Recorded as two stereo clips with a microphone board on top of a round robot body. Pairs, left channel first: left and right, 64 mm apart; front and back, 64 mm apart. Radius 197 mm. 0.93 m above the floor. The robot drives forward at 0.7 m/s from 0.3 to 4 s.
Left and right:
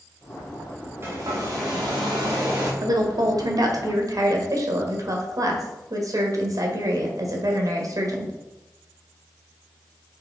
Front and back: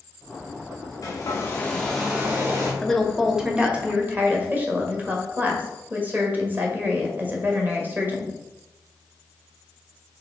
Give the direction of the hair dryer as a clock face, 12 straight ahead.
1 o'clock.